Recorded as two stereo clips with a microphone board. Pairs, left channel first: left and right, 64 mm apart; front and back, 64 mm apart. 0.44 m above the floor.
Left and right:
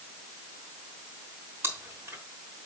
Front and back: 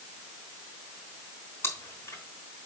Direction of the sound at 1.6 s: 45° right.